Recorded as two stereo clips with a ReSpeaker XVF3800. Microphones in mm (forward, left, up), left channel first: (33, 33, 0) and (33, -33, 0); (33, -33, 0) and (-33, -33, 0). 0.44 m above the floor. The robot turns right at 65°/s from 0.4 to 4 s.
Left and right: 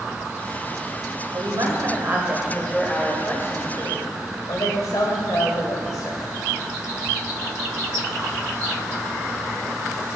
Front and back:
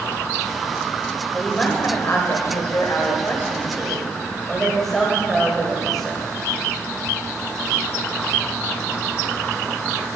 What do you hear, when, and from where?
1.3 s a woman speaking: 90° right, 1.6 m; by 6.3 s 85° left, 1.6 m